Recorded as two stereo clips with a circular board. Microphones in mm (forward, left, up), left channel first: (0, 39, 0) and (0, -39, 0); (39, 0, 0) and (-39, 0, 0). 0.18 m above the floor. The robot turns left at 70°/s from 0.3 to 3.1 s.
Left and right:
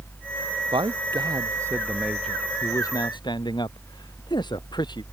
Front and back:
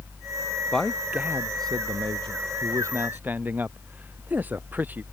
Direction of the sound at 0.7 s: 80° right.